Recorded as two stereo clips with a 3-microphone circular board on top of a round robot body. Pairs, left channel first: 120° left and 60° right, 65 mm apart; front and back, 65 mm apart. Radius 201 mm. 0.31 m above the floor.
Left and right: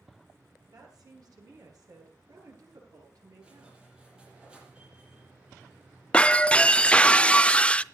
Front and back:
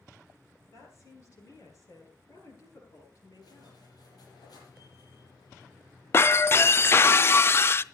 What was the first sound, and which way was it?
A woman speaking, 35° right.